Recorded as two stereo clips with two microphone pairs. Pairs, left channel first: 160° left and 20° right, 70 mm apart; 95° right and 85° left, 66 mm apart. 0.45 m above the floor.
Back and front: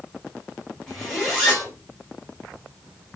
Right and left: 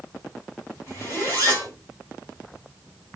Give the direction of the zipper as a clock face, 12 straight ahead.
4 o'clock.